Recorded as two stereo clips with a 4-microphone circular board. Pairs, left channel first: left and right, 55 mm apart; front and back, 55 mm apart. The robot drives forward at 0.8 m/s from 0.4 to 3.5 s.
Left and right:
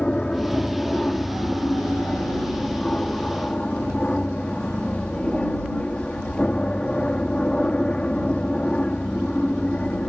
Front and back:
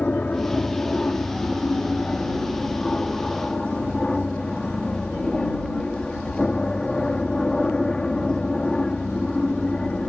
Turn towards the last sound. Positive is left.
turn(degrees=55)